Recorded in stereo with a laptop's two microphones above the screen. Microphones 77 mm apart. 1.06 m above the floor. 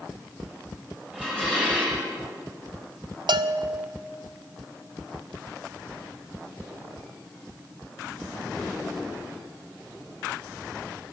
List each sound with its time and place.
1.1 s dishes clattering: 15° right (ahead or behind), 4 m
3.3 s a bell: 65° right (ahead or behind), 0.5 m